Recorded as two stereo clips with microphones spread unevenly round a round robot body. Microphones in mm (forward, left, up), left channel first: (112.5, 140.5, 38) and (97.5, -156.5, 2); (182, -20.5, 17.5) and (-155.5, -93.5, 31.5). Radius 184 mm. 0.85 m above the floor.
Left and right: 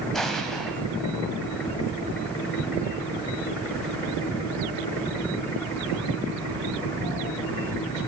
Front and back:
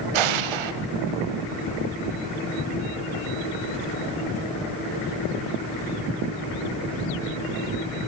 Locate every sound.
0.1 s an explosion: 175° left, 2 m